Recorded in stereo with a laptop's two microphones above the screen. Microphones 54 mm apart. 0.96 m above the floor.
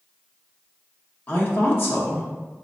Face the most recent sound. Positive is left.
turn(degrees=40)  # may be behind; listen again after turning